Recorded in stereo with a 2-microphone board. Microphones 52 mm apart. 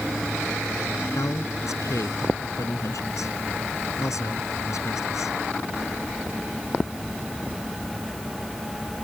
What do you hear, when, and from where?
1.1 s a man speaking: 85° left